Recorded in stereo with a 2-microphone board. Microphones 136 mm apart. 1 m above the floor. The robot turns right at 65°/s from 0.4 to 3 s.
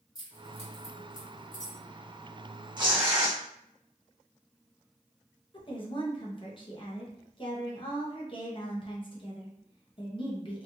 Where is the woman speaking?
40° left (ahead or behind), 0.7 m.